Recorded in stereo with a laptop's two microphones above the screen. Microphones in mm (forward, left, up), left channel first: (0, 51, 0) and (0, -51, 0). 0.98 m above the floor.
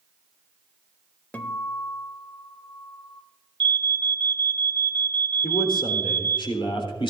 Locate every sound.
1.3 s a guitar: 15° left (ahead or behind), 1.0 m
3.6 s an alarm: 55° right (ahead or behind), 1.0 m
5.4 s a man speaking: 60° left (ahead or behind), 3.5 m